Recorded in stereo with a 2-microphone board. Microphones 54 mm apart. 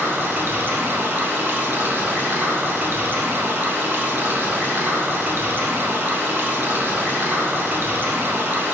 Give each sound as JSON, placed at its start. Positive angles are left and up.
{"t": 0.0, "sound": "running water", "side_deg": -40, "distance_m": 0.7}